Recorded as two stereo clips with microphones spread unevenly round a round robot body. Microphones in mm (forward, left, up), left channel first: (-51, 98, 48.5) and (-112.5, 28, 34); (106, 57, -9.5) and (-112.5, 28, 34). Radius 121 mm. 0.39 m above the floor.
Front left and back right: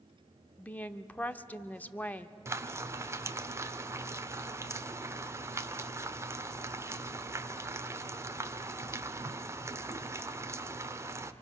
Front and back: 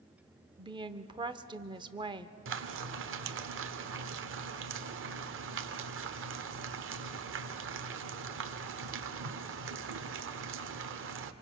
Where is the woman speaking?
120° left, 0.8 m.